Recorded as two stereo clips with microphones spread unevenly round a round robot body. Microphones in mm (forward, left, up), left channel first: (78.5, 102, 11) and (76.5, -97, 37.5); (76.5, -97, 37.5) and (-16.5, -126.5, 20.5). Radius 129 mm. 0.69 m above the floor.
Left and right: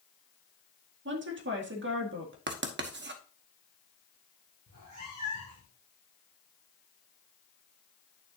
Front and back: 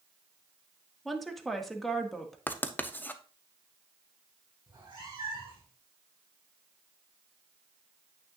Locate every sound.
1.1 s a woman speaking: 80° right, 1.8 m
2.5 s writing: 60° right, 1.1 m
4.7 s a cat meowing: 120° right, 4.5 m